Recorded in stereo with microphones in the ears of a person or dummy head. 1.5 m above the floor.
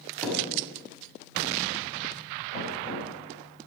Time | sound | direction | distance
0.2 | a thud | centre (ahead or behind) | 4.5 m
2.5 | knocking | 35° left (ahead or behind) | 7 m